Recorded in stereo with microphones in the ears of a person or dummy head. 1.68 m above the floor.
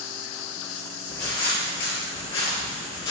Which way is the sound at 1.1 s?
15° left (ahead or behind).